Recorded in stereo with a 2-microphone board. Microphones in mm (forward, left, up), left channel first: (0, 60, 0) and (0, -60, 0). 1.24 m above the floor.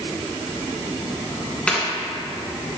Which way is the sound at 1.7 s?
10° left (ahead or behind).